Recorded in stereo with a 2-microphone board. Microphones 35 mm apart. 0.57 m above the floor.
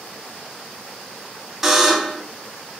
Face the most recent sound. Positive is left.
turn(degrees=-10)  # may be behind; listen again after turning